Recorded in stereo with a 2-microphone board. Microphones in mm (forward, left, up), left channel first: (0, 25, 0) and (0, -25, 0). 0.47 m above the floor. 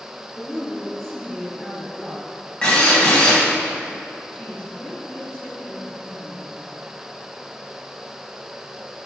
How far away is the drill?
About 3.5 m.